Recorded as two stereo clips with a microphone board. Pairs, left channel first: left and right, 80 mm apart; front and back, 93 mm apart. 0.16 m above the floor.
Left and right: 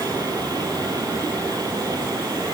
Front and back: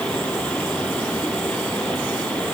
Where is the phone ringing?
I don't hear a phone ringing.